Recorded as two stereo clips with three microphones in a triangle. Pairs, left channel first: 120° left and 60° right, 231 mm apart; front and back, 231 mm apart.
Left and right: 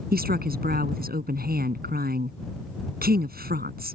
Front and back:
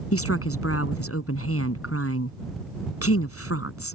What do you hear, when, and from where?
0.1 s a woman speaking: 10° right